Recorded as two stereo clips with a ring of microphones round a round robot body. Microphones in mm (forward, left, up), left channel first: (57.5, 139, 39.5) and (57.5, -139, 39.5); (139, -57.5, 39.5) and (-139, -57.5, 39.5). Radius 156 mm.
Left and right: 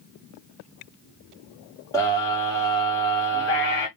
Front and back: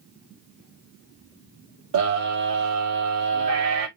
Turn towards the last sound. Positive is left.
turn(degrees=170)